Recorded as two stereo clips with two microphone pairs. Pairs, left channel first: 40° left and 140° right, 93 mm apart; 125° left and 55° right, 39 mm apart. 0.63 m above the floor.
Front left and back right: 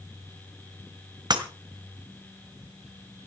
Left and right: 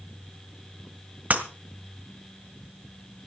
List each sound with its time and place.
1.3 s breaking glass: 100° right, 1.8 m